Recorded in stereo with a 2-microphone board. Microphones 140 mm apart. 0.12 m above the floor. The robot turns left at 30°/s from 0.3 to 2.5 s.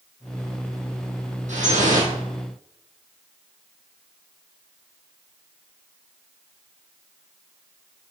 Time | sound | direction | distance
1.5 | dripping | 60° right (ahead or behind) | 2.0 m